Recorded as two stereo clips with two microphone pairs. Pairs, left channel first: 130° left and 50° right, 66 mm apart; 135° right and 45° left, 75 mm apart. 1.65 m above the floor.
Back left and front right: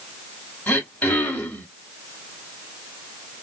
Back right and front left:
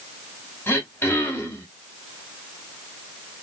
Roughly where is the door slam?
No door slam in this recording.